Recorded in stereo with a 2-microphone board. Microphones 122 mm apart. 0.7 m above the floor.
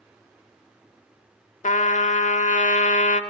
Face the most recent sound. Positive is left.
turn(degrees=75)  # may be behind; listen again after turning